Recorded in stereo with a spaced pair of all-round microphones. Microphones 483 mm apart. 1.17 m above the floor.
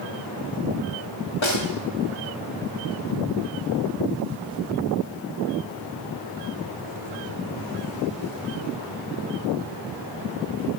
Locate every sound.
1.4 s a snare drum: 70° left (ahead or behind), 1.8 m